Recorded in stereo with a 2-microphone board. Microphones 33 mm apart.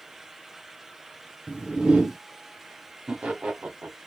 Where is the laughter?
45° right (ahead or behind), 1.0 m.